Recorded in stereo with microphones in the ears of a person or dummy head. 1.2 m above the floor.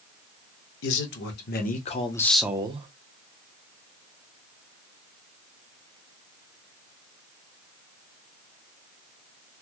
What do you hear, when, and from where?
0.8 s a man speaking: 65° left (ahead or behind), 1.1 m; by 2.9 s 35° right (ahead or behind), 0.6 m